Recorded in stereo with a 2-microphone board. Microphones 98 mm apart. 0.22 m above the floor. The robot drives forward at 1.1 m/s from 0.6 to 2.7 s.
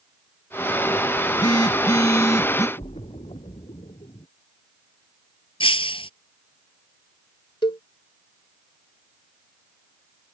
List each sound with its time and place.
1.2 s a phone buzzing: 50° left (ahead or behind); by 2.7 s 35° left (ahead or behind)
2.8 s a splash: 85° left
5.6 s breaking glass: 65° left (ahead or behind)
7.6 s a cowbell: 60° left (ahead or behind)